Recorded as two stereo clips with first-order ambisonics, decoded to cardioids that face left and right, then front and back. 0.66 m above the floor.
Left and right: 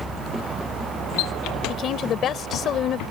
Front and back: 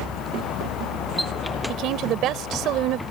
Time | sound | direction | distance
1.7 | a woman speaking | 140° left | ?